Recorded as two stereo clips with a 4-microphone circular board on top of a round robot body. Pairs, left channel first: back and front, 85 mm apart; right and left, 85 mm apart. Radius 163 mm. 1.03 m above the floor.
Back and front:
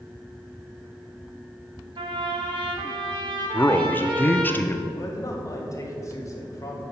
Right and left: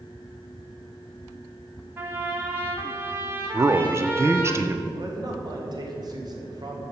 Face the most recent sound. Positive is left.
turn(degrees=130)